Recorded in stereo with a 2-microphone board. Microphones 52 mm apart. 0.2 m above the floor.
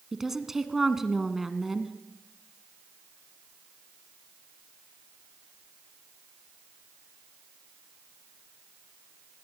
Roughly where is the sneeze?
No sneeze in this recording.